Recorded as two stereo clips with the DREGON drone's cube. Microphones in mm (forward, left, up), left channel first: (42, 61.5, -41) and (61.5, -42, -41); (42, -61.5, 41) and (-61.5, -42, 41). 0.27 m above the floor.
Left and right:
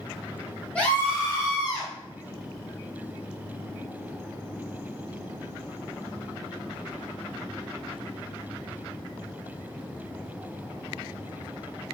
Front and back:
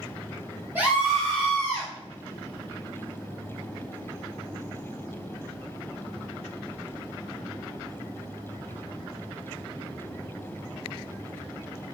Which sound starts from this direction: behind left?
A scream, at 0.8 s.